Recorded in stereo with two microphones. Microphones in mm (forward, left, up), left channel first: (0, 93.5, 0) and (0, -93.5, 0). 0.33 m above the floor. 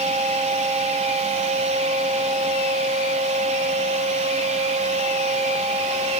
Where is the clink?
No clink in this recording.